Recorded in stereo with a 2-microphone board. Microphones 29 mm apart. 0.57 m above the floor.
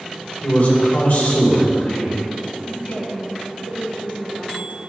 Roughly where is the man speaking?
Left.